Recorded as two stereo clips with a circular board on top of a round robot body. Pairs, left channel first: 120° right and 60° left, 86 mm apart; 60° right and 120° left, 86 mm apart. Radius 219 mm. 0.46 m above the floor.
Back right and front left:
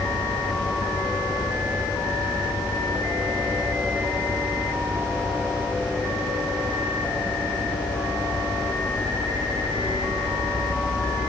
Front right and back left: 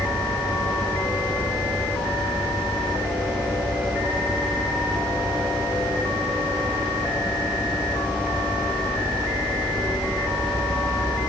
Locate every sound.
Only background noise.